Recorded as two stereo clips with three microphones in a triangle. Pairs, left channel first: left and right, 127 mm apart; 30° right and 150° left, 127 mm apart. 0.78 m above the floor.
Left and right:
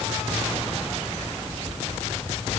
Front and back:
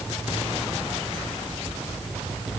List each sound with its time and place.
Only background noise.